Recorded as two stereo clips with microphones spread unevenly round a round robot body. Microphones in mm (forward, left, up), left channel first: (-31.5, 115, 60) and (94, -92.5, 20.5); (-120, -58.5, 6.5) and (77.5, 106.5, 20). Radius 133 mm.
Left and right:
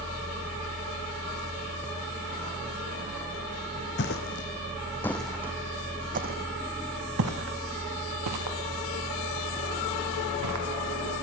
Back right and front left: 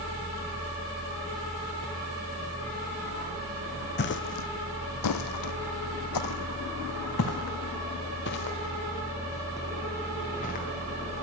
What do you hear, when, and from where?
4.0 s footsteps: 170° left, 1.1 m; by 10.7 s 75° right, 3 m